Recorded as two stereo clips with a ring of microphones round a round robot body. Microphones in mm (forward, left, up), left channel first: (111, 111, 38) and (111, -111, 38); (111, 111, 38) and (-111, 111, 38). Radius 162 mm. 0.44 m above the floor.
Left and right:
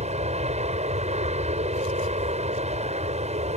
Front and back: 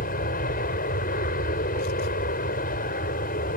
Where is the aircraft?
40° right.